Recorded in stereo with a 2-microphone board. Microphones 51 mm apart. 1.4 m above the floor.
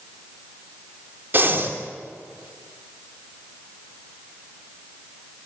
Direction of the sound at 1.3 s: 45° right (ahead or behind).